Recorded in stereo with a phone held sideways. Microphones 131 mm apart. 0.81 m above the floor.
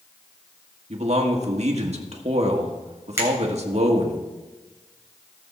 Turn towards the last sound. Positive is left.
turn(degrees=-20)  # may be behind; listen again after turning